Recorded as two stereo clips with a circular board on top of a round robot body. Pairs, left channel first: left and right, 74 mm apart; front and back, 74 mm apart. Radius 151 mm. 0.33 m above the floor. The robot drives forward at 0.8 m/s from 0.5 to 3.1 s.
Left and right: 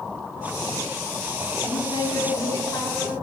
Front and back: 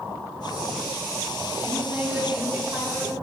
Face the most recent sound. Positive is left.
turn(degrees=130)